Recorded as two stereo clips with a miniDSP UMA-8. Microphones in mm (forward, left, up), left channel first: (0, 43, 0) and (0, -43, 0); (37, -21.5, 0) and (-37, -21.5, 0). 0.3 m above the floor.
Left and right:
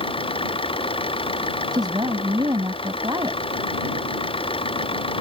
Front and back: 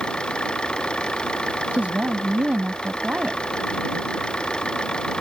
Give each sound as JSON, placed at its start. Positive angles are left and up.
{"t": 0.0, "sound": "an engine running", "azimuth_deg": 80}
{"t": 1.7, "sound": "a woman speaking", "azimuth_deg": -110}